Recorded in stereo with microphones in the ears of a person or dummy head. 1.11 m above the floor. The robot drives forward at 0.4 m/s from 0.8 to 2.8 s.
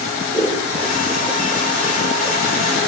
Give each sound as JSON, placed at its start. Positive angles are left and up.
{"t": 0.3, "sound": "scissors", "side_deg": 5, "distance_m": 3.5}